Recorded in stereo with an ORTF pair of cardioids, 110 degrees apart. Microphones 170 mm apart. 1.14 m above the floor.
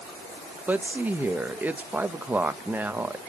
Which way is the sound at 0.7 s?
10° right.